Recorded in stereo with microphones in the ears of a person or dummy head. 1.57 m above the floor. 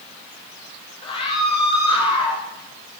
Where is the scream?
25° left (ahead or behind), 7.5 m.